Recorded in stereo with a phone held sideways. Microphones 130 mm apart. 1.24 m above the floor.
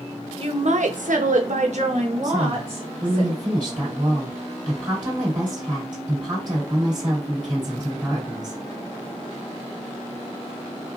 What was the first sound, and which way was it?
A woman speaking, 45° right (ahead or behind).